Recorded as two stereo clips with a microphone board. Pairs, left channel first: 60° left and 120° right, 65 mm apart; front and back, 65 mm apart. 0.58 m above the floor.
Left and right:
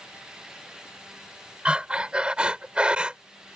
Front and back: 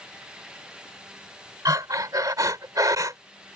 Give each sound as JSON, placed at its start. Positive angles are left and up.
{"t": 1.6, "sound": "breathing", "azimuth_deg": 170}